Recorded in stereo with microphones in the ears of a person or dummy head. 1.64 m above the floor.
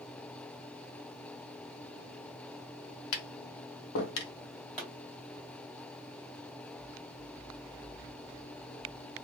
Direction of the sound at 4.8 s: 5° left (ahead or behind).